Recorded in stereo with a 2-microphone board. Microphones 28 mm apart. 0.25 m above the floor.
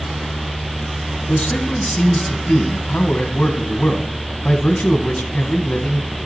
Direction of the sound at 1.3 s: 55° left (ahead or behind).